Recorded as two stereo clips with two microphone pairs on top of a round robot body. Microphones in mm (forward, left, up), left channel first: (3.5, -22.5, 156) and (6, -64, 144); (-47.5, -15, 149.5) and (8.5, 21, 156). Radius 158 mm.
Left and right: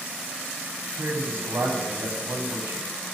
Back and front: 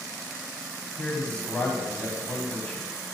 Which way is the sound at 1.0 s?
90° right.